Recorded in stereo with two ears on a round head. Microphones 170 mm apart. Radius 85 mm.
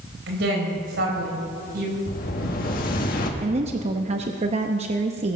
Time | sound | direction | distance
0.3 | a woman speaking | 65° right (ahead or behind) | 4.5 m
2.1 | an explosion | 50° left (ahead or behind) | 1.6 m
3.4 | a woman speaking | 35° right (ahead or behind) | 0.8 m